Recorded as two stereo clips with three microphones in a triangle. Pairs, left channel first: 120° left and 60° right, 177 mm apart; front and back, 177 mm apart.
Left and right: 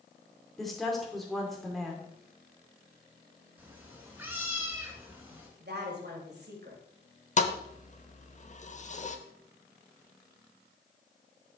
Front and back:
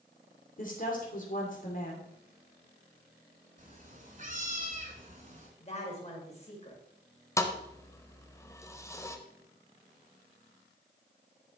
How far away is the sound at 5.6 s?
About 2.5 m.